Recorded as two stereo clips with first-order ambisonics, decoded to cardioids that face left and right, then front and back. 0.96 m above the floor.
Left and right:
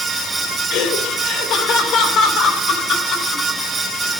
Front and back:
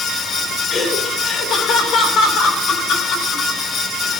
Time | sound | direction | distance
0.7 | laughter | 60° left | 2.5 m